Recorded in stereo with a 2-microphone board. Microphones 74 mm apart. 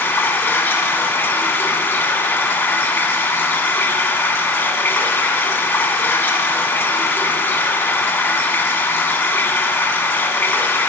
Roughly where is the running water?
Left.